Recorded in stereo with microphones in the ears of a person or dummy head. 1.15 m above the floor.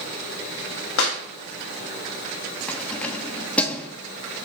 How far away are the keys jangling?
About 1.1 m.